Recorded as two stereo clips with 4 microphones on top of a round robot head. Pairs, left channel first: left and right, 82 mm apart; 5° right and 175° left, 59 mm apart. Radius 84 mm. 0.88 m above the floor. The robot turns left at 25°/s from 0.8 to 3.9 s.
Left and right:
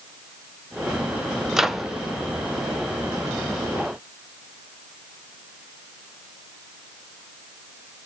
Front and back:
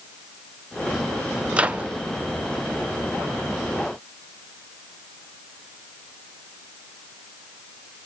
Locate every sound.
1.5 s a microwave: 165° right, 0.5 m; by 1.9 s 175° right, 0.5 m